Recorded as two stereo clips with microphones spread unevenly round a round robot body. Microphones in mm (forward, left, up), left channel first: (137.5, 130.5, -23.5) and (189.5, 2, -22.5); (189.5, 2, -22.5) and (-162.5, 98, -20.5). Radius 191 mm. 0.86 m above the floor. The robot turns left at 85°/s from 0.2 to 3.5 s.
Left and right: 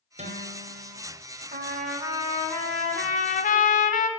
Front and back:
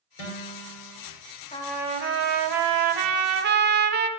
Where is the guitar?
30° right, 3 m; by 1.0 s 100° right, 3 m.